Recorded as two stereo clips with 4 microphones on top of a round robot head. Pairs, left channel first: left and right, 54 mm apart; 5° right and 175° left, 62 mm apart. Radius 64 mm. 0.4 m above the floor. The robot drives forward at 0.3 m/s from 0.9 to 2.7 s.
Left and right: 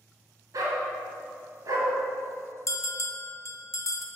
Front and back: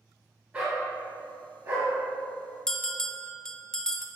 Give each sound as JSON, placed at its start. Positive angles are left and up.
{"t": 0.5, "sound": "a dog barking", "azimuth_deg": -110, "distance_m": 1.7}
{"t": 2.7, "sound": "a bell", "azimuth_deg": 75, "distance_m": 0.6}